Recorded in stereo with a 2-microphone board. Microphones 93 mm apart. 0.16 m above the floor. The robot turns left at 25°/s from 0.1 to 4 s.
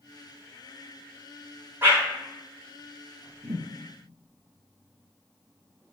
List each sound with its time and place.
1.8 s a whoosh: 25° right (ahead or behind), 1.1 m; by 2.0 s 20° right (ahead or behind), 1.1 m
3.4 s a thud: 40° right (ahead or behind), 0.9 m; by 3.6 s 45° right (ahead or behind), 0.9 m